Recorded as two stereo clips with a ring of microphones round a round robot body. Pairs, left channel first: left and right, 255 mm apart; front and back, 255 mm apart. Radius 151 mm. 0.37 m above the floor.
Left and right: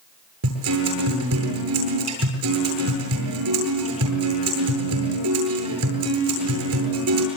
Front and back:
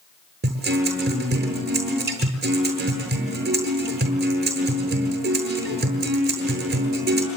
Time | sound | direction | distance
0.4 | a guitar | 125° right | 8.5 m